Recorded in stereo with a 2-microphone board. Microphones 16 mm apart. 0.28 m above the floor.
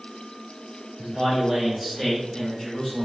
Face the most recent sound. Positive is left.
turn(degrees=25)  # may be behind; listen again after turning